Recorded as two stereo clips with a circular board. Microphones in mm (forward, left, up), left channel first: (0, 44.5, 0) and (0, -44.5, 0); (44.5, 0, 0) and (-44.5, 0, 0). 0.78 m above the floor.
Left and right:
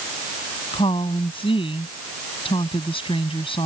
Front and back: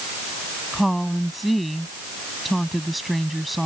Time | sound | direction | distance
0.7 | a woman speaking | 90° left | ?